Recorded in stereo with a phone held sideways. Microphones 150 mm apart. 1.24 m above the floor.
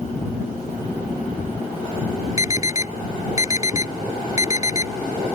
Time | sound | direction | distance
2.4 | an alarm | 20° right (ahead or behind) | ?